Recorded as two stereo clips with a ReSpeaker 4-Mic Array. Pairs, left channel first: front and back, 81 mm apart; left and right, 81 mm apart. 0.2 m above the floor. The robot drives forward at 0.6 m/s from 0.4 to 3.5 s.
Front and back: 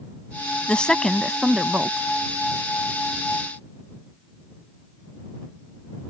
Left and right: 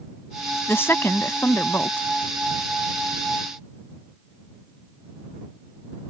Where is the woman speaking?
65° left; by 2.1 s 130° left.